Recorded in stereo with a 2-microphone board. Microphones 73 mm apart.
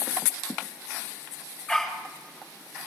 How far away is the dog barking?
About 8 m.